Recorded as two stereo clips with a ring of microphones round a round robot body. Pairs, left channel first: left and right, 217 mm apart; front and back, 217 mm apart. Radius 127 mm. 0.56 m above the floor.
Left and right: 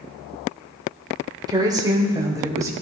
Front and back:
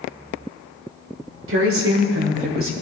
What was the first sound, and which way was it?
A woman speaking, 160° right.